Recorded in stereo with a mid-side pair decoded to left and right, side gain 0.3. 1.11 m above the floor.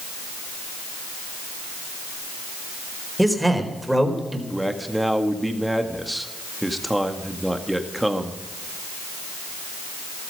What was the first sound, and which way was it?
A man speaking, 10° right.